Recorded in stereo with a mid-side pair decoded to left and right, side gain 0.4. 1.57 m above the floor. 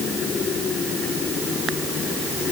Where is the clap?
No clap in this recording.